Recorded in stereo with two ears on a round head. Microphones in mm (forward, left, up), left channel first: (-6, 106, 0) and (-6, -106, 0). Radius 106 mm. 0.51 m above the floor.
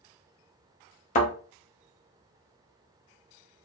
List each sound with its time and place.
1.1 s a thud: 30° left (ahead or behind), 0.9 m